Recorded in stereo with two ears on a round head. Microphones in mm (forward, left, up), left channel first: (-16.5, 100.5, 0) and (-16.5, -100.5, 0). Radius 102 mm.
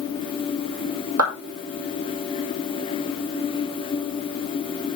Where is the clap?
65° right (ahead or behind), 5 m.